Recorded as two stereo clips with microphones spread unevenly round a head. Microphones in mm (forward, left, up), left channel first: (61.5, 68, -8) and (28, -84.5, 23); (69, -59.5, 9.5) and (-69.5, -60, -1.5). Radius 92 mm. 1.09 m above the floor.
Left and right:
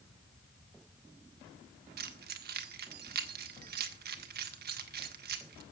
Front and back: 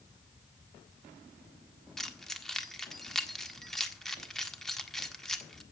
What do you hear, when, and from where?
2.0 s keys jangling: 85° right, 1.6 m